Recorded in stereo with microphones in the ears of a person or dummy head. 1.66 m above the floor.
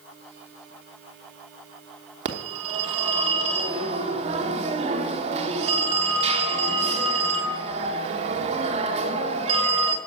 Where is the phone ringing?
40° right (ahead or behind), 1.1 m.